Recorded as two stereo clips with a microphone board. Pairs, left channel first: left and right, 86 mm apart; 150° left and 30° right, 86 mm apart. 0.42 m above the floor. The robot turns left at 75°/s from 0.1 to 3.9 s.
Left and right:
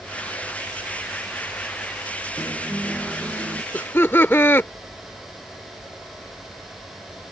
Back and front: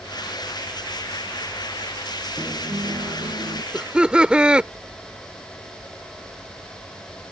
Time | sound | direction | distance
2.4 | a guitar | 40° left | ?
3.7 | laughter | 50° left | ?